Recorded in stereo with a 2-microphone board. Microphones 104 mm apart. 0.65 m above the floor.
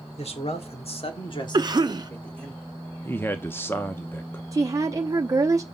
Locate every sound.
0.2 s a man speaking: 65° left (ahead or behind), 2 m; by 2.5 s 5° left (ahead or behind), 1.9 m
1.5 s a cough: 35° right (ahead or behind), 0.8 m
3.0 s a man speaking: 20° left (ahead or behind), 0.8 m
4.5 s a woman speaking: 30° right (ahead or behind), 0.8 m